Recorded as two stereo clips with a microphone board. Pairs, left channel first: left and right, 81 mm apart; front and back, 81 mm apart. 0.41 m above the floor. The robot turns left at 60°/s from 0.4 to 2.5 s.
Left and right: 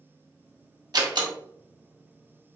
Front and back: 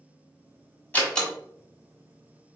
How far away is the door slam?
About 1.6 m.